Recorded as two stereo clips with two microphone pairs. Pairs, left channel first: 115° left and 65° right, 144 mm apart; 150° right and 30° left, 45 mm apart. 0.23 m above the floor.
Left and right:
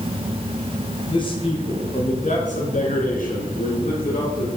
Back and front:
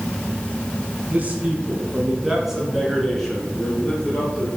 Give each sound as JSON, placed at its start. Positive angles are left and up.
{"t": 1.1, "sound": "a man speaking", "azimuth_deg": 70, "distance_m": 2.0}